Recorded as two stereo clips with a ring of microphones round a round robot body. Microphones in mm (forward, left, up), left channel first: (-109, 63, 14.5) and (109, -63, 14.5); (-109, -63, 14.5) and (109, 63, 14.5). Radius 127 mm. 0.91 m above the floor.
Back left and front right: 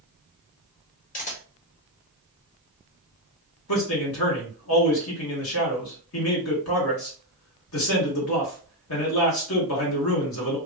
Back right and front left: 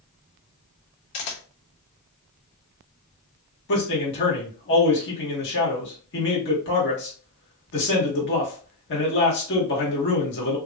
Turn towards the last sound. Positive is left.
turn(degrees=170)